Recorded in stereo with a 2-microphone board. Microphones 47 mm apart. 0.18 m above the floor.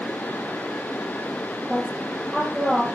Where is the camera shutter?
I don't hear a camera shutter.